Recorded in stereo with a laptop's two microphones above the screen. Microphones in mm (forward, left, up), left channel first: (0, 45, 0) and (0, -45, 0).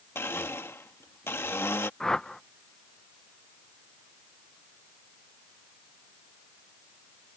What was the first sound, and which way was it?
A blender, 25° left (ahead or behind).